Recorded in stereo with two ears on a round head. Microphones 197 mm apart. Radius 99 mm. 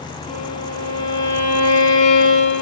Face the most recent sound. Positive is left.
turn(degrees=35)  # may be behind; listen again after turning